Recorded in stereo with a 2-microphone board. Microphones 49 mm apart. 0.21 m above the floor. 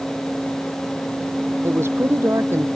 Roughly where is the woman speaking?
Right.